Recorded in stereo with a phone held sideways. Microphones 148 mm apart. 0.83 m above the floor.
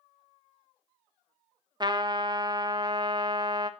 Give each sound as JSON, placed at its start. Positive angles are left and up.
{"t": 1.8, "sound": "a trumpet", "side_deg": -30, "distance_m": 0.6}